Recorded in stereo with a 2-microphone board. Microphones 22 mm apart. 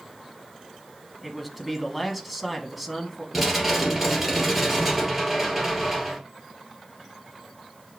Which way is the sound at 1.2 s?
5° right (ahead or behind).